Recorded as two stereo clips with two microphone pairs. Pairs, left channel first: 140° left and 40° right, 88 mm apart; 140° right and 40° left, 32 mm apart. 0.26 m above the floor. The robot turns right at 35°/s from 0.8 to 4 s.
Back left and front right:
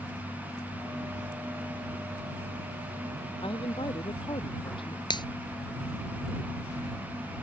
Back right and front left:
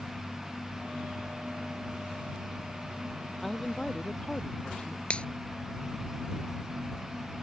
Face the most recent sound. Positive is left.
turn(degrees=165)